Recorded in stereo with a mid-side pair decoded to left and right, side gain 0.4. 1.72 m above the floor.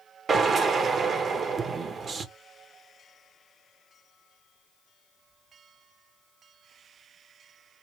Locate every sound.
0.3 s a drill: 45° right, 0.9 m